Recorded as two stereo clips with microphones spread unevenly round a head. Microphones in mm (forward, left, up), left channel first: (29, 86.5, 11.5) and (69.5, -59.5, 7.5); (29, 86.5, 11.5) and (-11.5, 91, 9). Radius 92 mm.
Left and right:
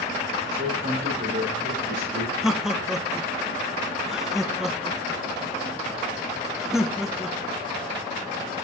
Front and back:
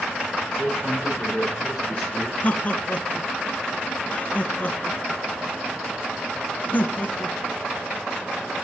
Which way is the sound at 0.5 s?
70° right.